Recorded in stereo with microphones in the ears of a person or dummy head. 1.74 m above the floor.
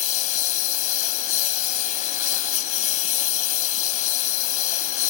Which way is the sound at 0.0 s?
50° left (ahead or behind).